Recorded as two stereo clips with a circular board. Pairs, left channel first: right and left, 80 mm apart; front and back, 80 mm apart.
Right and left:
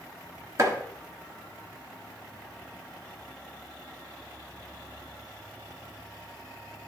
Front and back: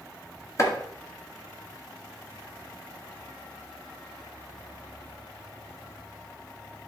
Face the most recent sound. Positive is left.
turn(degrees=45)